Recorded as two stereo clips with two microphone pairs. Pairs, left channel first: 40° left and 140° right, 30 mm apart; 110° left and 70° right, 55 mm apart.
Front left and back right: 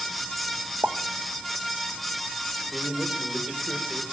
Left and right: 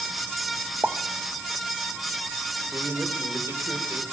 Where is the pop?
125° right, 0.9 m.